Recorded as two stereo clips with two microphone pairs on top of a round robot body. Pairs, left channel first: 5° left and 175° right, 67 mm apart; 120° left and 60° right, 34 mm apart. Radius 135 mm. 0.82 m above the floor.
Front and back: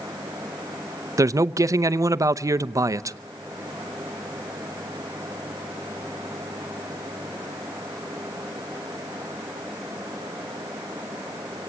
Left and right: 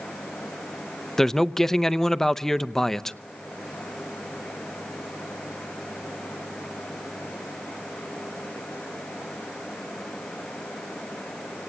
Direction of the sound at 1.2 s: 170° right.